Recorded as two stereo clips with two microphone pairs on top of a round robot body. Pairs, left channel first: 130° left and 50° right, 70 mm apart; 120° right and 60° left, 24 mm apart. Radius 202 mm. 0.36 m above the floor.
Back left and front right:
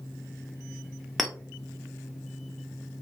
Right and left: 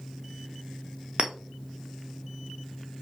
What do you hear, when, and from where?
1.2 s a clink: 45° left, 1.1 m